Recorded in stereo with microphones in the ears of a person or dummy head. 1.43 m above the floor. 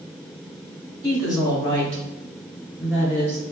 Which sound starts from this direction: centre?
A woman speaking, at 1.0 s.